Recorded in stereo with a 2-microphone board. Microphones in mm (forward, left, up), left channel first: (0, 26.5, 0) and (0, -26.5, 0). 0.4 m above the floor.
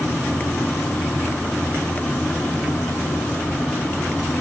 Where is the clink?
I don't hear a clink.